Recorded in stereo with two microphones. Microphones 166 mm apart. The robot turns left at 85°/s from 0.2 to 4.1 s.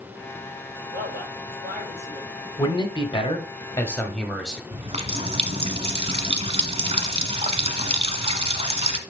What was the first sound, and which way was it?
A man speaking, 50° right.